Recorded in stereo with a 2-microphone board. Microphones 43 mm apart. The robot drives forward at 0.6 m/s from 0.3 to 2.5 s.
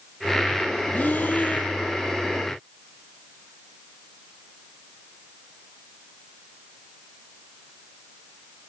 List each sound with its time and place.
0.9 s breathing: 40° left (ahead or behind), 2.0 m; by 1.7 s 50° left (ahead or behind), 1.7 m